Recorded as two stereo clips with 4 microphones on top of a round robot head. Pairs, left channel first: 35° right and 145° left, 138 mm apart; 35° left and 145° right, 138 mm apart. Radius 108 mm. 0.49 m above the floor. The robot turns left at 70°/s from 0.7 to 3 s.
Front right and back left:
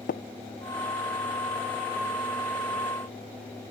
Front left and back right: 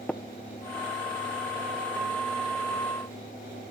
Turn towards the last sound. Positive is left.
turn(degrees=155)